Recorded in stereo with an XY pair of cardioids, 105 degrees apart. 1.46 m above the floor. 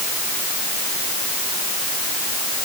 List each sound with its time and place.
Only background noise.